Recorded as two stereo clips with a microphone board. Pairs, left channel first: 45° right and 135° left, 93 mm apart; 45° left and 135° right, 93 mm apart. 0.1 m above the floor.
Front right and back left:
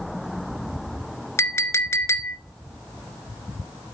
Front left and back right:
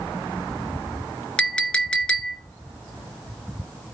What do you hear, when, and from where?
1.4 s a clink: 25° right, 0.8 m